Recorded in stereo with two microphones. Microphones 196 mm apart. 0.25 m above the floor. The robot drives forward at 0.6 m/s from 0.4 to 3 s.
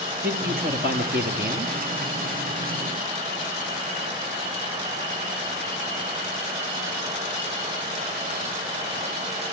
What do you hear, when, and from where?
0.2 s a man speaking: 50° right (ahead or behind), 7 m; by 1.7 s 55° right (ahead or behind), 6.5 m